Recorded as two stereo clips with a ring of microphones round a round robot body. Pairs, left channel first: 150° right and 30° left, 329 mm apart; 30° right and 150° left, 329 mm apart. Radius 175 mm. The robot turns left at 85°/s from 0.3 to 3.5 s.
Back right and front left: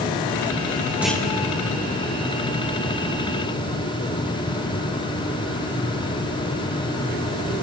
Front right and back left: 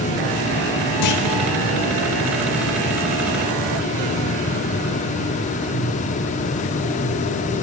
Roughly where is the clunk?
Ahead right.